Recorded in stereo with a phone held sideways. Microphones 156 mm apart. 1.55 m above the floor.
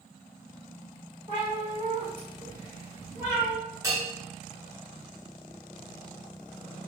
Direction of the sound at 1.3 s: 40° right (ahead or behind).